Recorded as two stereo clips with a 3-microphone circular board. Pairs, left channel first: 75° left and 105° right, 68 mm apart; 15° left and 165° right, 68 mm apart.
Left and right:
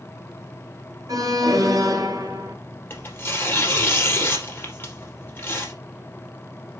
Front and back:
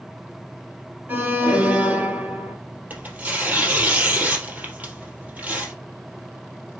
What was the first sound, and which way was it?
An alarm, 110° right.